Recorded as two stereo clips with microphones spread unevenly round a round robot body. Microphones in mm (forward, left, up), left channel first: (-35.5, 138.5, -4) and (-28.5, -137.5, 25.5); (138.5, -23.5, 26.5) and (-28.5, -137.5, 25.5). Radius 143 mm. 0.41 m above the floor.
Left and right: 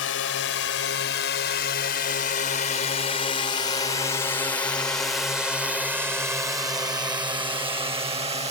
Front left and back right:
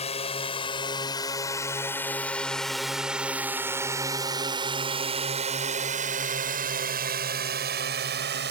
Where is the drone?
90° left; by 8.5 s 155° right.